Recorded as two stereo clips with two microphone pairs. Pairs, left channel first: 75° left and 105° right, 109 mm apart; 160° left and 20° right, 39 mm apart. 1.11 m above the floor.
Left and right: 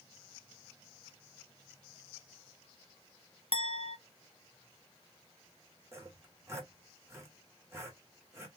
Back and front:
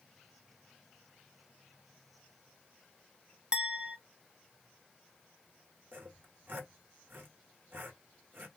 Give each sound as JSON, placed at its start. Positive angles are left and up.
{"t": 3.5, "sound": "a clink", "azimuth_deg": 50, "distance_m": 0.8}
{"t": 5.9, "sound": "sawing", "azimuth_deg": -45, "distance_m": 2.0}